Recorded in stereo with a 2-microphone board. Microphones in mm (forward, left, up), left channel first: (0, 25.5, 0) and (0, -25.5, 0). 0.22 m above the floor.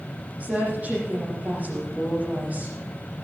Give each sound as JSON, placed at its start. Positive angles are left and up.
{"t": 0.4, "sound": "a woman speaking", "side_deg": -30, "distance_m": 9.0}